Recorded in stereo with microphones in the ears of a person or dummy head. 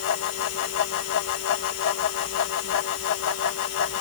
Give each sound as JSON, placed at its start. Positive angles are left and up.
{"t": 0.0, "sound": "a fan", "side_deg": 75}